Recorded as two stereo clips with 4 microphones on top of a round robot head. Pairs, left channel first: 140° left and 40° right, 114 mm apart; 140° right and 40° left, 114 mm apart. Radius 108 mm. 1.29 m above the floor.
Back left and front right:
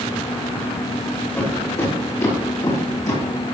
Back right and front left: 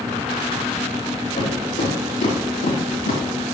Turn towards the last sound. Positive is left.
turn(degrees=-165)